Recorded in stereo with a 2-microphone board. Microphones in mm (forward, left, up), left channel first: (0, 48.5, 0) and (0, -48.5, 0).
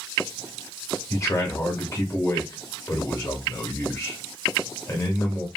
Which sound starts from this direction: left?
A man speaking, at 1.1 s.